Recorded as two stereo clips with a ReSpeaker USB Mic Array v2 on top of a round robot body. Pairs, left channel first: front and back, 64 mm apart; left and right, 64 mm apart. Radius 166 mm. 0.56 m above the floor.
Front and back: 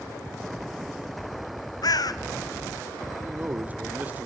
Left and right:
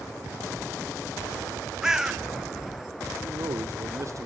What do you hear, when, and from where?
1.8 s a bird: 10° right, 1.0 m
3.2 s a man speaking: 115° right, 1.9 m